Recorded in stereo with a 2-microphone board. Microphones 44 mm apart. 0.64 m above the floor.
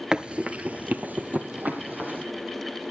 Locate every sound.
0.1 s running footsteps: 20° right (ahead or behind), 0.6 m; by 2.2 s 45° right (ahead or behind), 1.9 m